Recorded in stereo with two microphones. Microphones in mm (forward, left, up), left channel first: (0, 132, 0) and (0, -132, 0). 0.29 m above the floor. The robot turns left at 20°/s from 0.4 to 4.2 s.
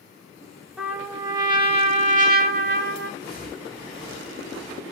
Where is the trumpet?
5° right, 0.6 m; by 3.1 s 50° right, 0.6 m.